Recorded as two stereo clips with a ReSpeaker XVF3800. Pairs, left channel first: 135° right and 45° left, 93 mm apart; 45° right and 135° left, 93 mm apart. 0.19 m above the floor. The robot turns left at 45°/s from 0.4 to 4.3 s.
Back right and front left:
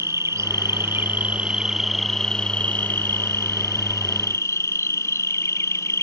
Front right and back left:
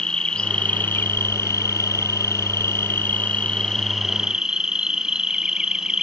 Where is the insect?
25° left; by 6.0 s 150° right.